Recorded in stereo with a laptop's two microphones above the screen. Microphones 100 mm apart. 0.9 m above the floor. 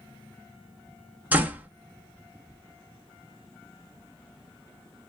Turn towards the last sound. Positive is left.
turn(degrees=-15)  # may be behind; listen again after turning